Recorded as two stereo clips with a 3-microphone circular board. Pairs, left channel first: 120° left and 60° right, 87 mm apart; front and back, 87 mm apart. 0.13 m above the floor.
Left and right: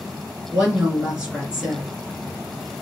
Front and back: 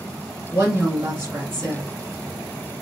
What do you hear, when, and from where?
0.5 s a woman speaking: 130° right, 1.8 m